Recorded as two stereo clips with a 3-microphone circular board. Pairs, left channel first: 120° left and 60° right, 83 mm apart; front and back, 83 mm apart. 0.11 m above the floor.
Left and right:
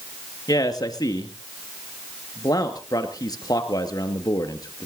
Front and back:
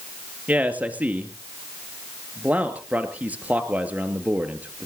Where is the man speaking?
115° left, 2.0 m.